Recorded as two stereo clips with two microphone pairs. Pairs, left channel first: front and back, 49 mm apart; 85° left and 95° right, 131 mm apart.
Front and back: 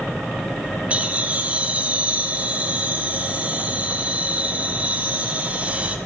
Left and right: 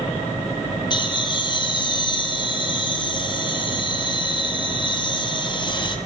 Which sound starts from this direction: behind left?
Laughter, at 0.9 s.